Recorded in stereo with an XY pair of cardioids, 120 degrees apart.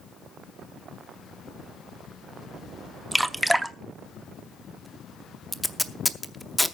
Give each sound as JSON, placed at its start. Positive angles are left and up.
{"t": 3.1, "sound": "dripping", "azimuth_deg": -10, "distance_m": 0.6}
{"t": 5.5, "sound": "tape being pulled", "azimuth_deg": 10, "distance_m": 0.7}